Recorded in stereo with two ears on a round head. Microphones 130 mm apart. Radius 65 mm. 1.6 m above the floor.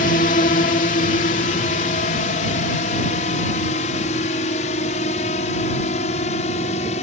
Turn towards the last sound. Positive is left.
turn(degrees=50)  # may be behind; listen again after turning